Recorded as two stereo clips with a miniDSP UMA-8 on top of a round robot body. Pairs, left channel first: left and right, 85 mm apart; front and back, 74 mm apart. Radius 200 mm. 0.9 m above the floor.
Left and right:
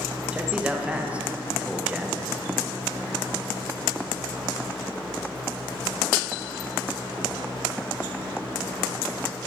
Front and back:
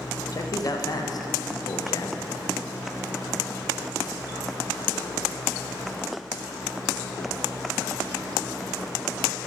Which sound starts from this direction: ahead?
A man speaking, at 0.3 s.